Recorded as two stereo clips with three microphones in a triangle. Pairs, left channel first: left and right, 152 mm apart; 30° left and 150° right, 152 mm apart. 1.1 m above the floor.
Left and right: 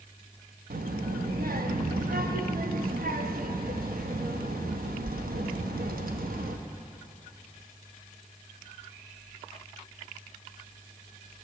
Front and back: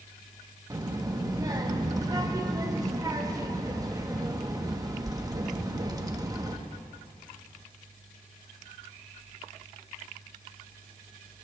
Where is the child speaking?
85° right, 0.8 m.